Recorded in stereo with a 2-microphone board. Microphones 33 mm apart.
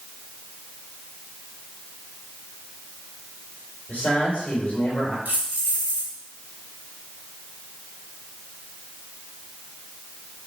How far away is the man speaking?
About 3 m.